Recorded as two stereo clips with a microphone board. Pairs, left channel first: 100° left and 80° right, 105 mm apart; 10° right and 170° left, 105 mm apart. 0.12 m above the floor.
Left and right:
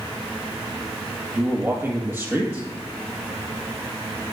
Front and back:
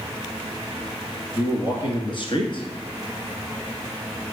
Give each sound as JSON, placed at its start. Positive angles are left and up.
{"t": 1.4, "sound": "a man speaking", "azimuth_deg": -15, "distance_m": 1.7}